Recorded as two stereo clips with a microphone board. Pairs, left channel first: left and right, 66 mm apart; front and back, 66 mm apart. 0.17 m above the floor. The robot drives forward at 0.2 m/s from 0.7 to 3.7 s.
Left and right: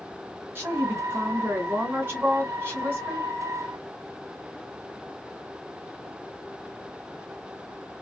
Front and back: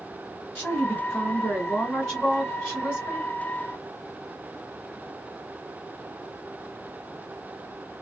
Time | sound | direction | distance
0.6 | a woman speaking | 70° right | 1.7 m